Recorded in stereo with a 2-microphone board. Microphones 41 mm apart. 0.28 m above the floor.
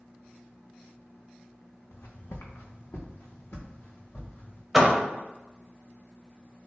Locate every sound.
1.9 s footsteps: 65° left (ahead or behind), 0.9 m; by 4.6 s 50° left (ahead or behind), 2.5 m
4.7 s a door slam: 5° right (ahead or behind), 0.6 m